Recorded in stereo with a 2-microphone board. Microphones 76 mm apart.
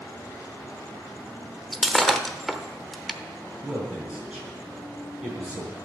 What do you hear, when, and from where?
1.7 s breaking glass: centre (ahead or behind), 0.8 m
3.6 s a man speaking: 15° right (ahead or behind), 5 m